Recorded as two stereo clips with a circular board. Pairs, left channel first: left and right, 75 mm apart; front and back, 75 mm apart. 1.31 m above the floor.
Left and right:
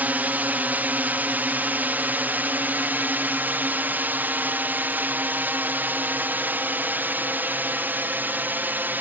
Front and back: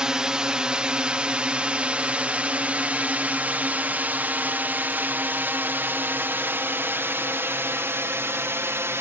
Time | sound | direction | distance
0.0 | a drone | 115° right | ?